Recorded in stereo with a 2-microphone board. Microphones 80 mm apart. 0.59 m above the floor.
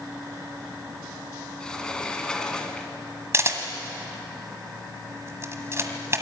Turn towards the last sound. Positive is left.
turn(degrees=-35)  # may be behind; listen again after turning